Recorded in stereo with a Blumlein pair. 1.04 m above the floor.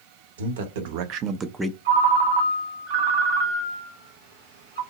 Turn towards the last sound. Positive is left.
turn(degrees=-50)